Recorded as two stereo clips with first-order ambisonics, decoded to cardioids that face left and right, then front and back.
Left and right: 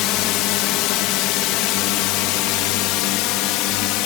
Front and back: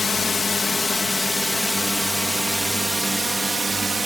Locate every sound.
0.0 s a drone: 75° left; by 4.1 s 105° left